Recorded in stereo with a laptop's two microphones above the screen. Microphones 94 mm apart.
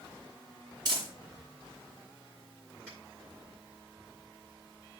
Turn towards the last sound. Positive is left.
turn(degrees=-15)  # may be behind; listen again after turning